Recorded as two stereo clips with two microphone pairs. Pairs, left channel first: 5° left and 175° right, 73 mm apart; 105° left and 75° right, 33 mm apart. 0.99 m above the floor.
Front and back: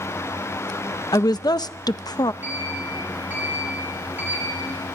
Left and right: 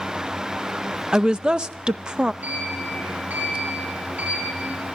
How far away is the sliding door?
About 9 m.